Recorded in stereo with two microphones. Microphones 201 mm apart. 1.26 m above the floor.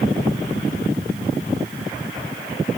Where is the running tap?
No running tap in this recording.